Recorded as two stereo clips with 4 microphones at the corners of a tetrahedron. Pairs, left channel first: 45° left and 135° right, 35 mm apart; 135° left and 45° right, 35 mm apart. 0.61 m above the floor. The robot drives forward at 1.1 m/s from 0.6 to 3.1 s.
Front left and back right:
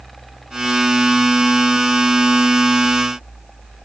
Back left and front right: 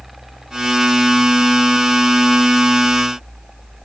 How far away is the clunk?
No clunk in this recording.